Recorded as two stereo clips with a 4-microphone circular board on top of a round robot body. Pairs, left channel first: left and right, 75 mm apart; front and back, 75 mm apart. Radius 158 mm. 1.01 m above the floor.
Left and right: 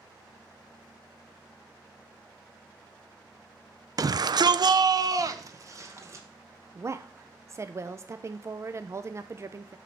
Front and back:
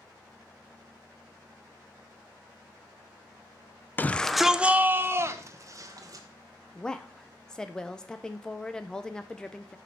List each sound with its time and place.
4.0 s a shout: 60° right, 0.5 m; by 6.2 s 140° right, 1.3 m
6.8 s a woman speaking: 75° right, 0.7 m